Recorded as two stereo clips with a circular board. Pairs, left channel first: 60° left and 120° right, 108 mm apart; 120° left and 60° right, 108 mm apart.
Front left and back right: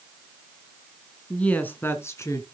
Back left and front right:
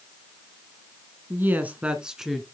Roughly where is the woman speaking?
Ahead.